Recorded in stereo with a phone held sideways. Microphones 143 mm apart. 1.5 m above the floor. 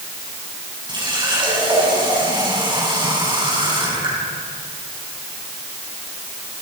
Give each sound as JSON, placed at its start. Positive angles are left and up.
{"t": 0.9, "sound": "a running tap", "side_deg": -30, "distance_m": 8.5}